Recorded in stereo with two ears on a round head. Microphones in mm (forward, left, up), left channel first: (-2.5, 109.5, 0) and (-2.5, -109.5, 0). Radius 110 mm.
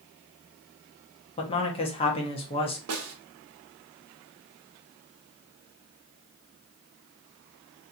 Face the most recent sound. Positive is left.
turn(degrees=-65)  # may be behind; listen again after turning